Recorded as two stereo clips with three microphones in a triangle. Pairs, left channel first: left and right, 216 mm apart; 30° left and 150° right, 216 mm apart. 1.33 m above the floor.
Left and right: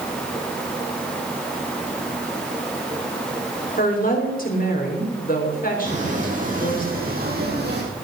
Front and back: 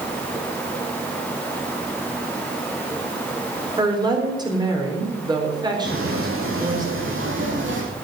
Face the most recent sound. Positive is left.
turn(degrees=-125)